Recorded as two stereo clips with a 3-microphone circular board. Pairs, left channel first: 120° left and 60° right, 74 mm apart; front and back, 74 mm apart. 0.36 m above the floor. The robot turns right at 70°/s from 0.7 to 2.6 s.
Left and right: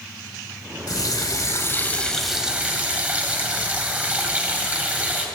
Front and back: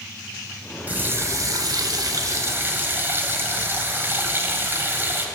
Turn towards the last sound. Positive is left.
turn(degrees=-125)